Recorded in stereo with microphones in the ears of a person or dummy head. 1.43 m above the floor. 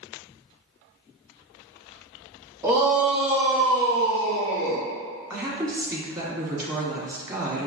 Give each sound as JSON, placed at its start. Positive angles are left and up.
{"t": 2.6, "sound": "a shout", "side_deg": -15, "distance_m": 1.3}
{"t": 5.3, "sound": "a woman speaking", "side_deg": -20, "distance_m": 1.1}